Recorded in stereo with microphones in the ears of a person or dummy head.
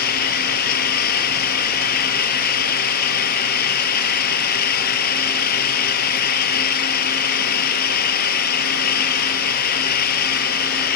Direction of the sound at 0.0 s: 55° left (ahead or behind).